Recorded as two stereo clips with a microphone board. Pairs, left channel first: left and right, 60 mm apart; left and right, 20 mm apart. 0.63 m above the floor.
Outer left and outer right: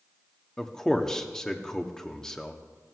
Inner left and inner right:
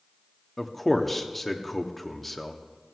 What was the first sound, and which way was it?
A man speaking, 10° left (ahead or behind).